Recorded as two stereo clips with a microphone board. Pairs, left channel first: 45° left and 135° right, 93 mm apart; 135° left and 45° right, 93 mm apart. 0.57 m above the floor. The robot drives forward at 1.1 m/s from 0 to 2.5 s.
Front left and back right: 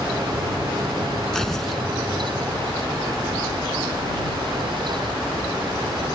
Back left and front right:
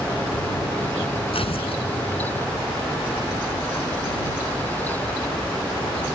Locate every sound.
1.3 s tearing paper: 130° left; by 1.8 s 135° left